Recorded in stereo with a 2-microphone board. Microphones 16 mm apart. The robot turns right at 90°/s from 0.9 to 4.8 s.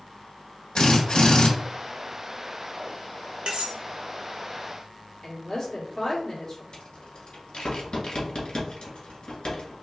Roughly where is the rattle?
Left.